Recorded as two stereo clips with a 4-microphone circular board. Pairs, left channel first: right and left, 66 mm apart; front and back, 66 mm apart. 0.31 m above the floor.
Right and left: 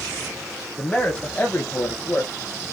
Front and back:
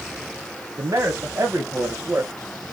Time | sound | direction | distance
0.8 | a man speaking | 160° right | 1.8 m